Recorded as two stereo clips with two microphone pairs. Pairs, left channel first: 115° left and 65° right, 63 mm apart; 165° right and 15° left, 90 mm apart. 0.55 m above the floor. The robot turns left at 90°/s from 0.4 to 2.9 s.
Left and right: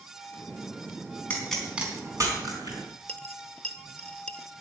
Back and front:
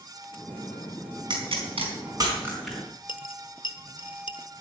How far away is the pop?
About 4 m.